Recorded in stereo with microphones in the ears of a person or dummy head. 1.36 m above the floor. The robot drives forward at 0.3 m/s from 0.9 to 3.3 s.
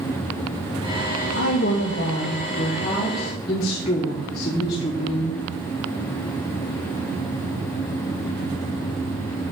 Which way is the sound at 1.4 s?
55° left (ahead or behind).